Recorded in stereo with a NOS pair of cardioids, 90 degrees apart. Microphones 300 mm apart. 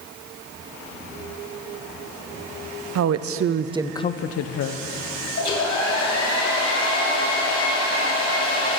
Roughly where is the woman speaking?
Ahead right.